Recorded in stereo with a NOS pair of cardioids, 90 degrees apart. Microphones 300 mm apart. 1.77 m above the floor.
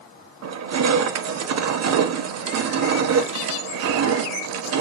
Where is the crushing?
55° right, 0.9 m.